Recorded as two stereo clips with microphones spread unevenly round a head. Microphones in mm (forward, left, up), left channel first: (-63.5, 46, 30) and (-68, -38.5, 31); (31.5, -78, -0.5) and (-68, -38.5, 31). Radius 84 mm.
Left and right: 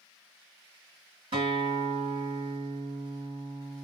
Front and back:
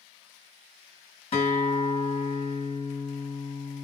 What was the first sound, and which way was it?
A guitar, 50° right.